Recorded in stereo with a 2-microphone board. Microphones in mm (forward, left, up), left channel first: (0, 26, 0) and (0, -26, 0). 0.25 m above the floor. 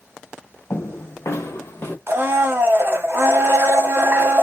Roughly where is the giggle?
No giggle in this recording.